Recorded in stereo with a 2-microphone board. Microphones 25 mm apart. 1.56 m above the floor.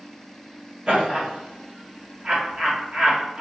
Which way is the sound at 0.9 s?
45° right (ahead or behind).